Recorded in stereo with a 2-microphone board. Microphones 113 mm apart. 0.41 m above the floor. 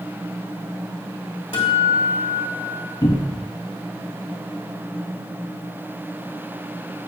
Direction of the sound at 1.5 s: 60° left (ahead or behind).